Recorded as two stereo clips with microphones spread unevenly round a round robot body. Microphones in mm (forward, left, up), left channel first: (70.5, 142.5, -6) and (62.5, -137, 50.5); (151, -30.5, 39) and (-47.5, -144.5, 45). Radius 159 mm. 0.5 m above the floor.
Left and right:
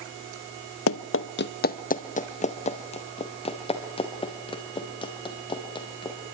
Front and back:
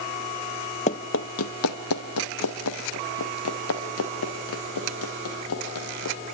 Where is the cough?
No cough in this recording.